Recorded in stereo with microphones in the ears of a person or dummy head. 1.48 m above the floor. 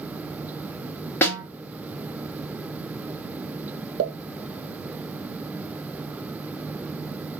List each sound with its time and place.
1.2 s a snare drum: 10° left (ahead or behind), 0.9 m
4.0 s a pop: 50° right (ahead or behind), 0.5 m